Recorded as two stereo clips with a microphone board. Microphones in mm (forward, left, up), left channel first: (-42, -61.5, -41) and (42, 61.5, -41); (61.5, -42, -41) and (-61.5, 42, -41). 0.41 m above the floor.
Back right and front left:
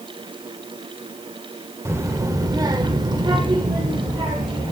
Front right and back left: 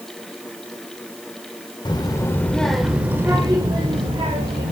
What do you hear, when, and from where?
1.9 s a child speaking: 5° right, 0.9 m; by 4.7 s 115° left, 1.4 m